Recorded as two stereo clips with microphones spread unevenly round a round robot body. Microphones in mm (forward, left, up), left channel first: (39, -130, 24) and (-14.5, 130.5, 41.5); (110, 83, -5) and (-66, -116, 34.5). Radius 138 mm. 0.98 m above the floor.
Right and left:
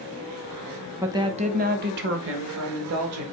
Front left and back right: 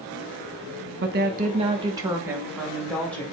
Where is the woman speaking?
175° right, 0.9 m; by 3.2 s 130° left, 1.8 m.